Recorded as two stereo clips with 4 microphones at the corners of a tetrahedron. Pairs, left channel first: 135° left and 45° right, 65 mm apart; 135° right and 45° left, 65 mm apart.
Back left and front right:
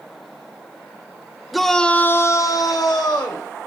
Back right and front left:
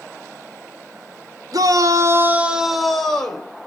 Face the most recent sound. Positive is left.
turn(degrees=155)